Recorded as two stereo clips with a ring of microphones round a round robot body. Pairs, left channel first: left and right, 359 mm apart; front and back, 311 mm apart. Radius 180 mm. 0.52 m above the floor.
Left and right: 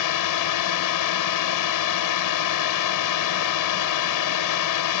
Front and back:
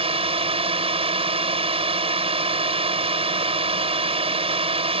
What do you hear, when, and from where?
0.0 s a drone: 110° left